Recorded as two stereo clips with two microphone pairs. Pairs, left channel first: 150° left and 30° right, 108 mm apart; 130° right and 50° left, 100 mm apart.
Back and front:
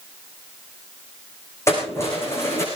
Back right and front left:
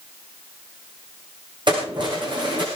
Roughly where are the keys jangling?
Left.